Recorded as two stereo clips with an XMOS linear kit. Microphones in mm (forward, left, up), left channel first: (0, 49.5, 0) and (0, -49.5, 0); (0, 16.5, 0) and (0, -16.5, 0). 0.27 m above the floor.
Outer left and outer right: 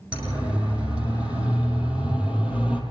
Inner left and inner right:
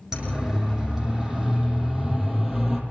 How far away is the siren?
About 9 m.